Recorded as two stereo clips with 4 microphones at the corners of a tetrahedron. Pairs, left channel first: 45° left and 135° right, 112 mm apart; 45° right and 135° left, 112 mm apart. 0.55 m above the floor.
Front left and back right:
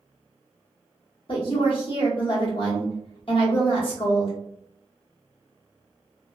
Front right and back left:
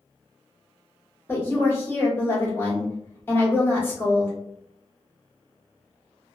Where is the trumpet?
I don't hear a trumpet.